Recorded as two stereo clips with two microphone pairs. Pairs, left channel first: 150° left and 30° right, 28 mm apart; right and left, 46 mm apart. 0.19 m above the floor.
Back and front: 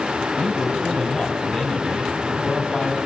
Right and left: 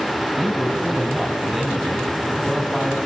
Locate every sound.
0.4 s a man speaking: 175° right, 1.0 m